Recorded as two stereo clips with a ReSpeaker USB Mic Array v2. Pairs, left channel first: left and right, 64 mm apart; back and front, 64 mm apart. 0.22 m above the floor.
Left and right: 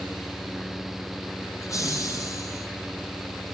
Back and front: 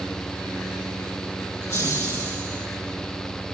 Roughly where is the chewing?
No chewing in this recording.